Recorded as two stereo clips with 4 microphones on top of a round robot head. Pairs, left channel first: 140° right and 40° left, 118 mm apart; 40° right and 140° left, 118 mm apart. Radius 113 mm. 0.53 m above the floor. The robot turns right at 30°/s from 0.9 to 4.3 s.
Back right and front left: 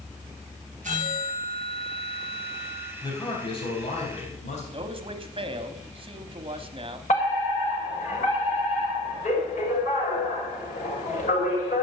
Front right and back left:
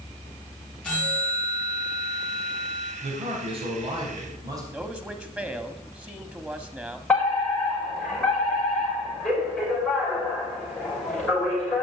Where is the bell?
40° left, 6.5 m; by 2.9 s 100° left, 6.5 m.